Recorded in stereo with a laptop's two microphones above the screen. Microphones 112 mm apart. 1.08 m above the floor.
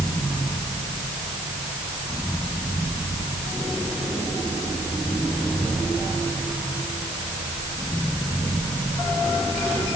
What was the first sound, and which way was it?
Only background noise.